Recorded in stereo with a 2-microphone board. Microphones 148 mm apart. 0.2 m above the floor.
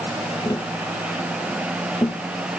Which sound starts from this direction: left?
Tapping, at 0.5 s.